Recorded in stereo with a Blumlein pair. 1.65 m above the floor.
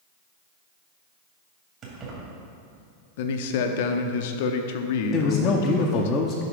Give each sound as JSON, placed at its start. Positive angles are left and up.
{"t": 1.8, "sound": "keys jangling", "azimuth_deg": -30, "distance_m": 2.5}
{"t": 3.2, "sound": "a man speaking", "azimuth_deg": 50, "distance_m": 0.7}
{"t": 5.1, "sound": "a man speaking", "azimuth_deg": 25, "distance_m": 0.7}